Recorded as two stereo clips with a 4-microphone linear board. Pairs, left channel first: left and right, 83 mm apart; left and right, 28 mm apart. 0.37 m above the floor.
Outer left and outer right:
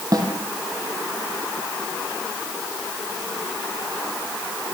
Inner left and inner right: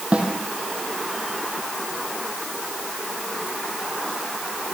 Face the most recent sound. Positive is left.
turn(degrees=-50)  # may be behind; listen again after turning